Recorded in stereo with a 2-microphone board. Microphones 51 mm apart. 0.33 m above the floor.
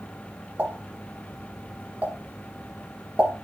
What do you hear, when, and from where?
0.6 s a pop: 30° right (ahead or behind), 1.5 m